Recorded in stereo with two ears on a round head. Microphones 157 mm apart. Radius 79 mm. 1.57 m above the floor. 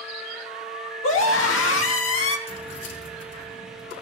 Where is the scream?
85° left, 2.5 m.